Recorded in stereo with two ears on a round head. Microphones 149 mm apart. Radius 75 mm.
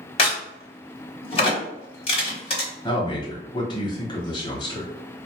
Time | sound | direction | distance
0.2 | a crack | 35° left (ahead or behind) | 1.1 m
2.8 | a man speaking | 25° left (ahead or behind) | 1.0 m